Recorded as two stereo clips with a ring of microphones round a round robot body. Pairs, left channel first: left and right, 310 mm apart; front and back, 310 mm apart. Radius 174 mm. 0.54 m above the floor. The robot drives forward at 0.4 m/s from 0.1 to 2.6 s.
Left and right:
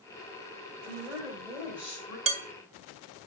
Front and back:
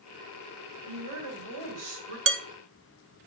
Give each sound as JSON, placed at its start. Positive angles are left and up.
{"t": 0.9, "sound": "a woman speaking", "azimuth_deg": -175, "distance_m": 2.0}
{"t": 2.3, "sound": "dishes clattering", "azimuth_deg": -150, "distance_m": 0.7}